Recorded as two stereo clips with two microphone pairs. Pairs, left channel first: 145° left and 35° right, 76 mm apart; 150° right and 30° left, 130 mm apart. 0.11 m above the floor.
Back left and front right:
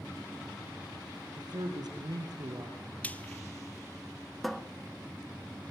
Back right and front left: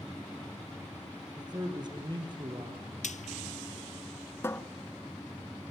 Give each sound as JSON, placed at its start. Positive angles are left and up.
{"t": 1.4, "sound": "a man speaking", "azimuth_deg": -30, "distance_m": 3.5}
{"t": 3.0, "sound": "frying", "azimuth_deg": -145, "distance_m": 0.6}
{"t": 4.4, "sound": "a cupboard door", "azimuth_deg": -120, "distance_m": 0.7}